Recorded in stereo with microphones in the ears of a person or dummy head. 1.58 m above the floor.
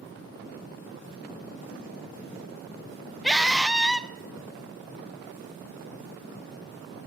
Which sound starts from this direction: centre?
A scream, at 3.2 s.